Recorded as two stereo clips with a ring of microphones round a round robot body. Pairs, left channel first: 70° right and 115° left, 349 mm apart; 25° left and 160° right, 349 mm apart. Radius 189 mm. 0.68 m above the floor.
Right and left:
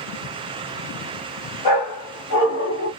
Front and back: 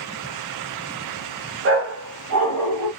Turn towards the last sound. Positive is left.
turn(degrees=-125)